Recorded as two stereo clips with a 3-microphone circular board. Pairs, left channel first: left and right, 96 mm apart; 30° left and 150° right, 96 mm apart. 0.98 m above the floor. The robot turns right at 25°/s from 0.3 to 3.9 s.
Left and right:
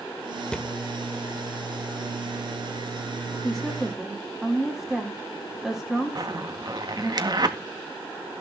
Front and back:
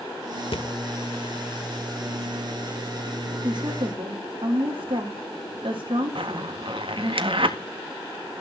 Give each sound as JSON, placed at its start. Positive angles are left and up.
{"t": 0.5, "sound": "a thud", "azimuth_deg": 10, "distance_m": 1.6}
{"t": 3.4, "sound": "a woman speaking", "azimuth_deg": 175, "distance_m": 3.5}
{"t": 6.2, "sound": "a zipper", "azimuth_deg": -130, "distance_m": 1.7}